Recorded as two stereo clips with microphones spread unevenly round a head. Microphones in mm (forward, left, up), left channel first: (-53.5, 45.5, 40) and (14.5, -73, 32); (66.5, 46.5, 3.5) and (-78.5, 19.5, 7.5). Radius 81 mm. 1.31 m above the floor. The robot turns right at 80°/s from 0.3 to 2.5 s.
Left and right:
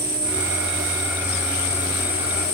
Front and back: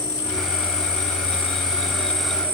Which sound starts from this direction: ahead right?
An insect, at 0.0 s.